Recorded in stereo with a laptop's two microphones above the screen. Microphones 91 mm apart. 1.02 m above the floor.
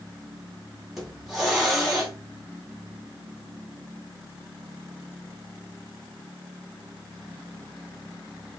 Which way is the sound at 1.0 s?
Centre (ahead or behind).